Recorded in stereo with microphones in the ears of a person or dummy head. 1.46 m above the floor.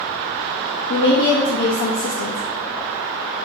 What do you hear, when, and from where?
0.9 s a woman speaking: 70° left (ahead or behind), 0.6 m